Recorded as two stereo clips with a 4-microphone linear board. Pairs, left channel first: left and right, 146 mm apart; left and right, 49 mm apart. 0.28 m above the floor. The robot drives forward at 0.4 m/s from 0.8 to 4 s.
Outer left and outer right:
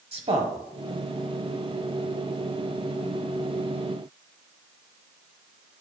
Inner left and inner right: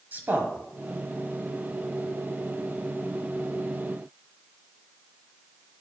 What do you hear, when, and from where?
0.1 s a man speaking: 45° right (ahead or behind), 1.3 m